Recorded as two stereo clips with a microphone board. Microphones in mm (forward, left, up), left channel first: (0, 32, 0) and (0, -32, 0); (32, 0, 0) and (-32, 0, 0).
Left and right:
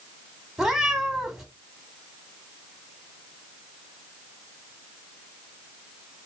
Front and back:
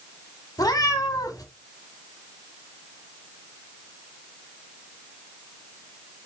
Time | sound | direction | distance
0.6 | a cat meowing | 10° right | 1.1 m